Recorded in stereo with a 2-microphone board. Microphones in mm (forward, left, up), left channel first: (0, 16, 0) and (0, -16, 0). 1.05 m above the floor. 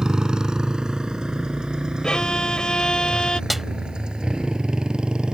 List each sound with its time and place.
0.0 s a motorcycle: 25° right (ahead or behind); by 5.3 s 30° right (ahead or behind)
2.0 s a violin: 30° left (ahead or behind)
3.5 s a snare drum: 5° right (ahead or behind)